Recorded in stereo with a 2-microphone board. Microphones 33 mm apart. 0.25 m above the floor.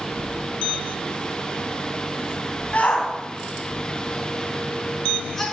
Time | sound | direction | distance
2.7 | a shout | 45° left (ahead or behind) | 2 m